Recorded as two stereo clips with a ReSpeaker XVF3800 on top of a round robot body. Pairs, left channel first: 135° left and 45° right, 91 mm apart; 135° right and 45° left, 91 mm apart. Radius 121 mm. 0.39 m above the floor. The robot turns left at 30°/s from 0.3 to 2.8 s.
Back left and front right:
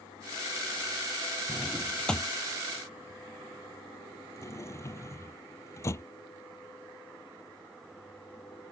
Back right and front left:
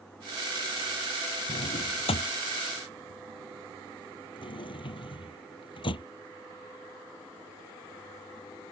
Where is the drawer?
125° right; by 6.0 s 165° right.